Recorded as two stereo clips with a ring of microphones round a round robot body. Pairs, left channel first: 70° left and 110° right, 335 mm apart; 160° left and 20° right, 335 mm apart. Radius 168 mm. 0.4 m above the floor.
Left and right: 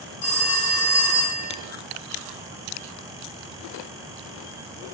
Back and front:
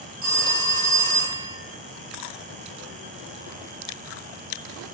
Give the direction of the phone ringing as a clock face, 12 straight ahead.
11 o'clock.